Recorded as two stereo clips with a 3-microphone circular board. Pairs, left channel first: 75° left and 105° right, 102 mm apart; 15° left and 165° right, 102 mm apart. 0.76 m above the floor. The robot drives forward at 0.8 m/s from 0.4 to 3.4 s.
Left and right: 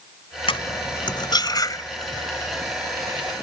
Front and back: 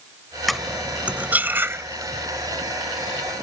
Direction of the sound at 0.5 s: 105° left.